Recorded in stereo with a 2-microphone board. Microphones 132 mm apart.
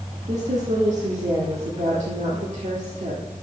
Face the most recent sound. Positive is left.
turn(degrees=-60)  # may be behind; listen again after turning